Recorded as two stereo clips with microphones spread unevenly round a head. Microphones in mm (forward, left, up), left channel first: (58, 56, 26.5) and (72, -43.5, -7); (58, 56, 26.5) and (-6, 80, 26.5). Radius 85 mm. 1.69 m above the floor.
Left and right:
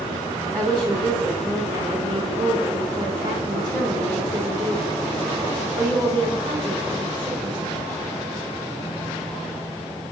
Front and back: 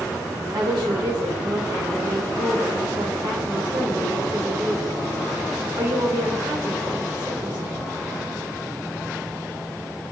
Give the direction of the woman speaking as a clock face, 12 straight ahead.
5 o'clock.